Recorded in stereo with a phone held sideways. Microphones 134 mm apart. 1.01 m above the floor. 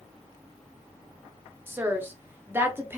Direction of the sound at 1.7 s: 15° right (ahead or behind).